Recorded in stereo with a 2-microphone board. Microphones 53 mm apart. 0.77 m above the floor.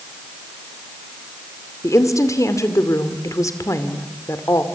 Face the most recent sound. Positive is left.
turn(degrees=70)  # may be behind; listen again after turning